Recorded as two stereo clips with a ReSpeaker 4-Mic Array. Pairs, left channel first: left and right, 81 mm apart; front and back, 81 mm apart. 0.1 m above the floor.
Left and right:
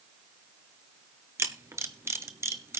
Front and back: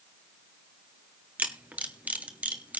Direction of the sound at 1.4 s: 120° right.